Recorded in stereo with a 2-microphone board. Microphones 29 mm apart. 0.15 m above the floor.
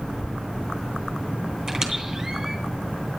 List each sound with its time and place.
1.7 s a squeak: 30° right (ahead or behind), 3 m